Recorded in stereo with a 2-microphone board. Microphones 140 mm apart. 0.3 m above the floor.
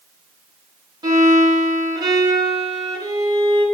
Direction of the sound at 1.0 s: 30° right (ahead or behind).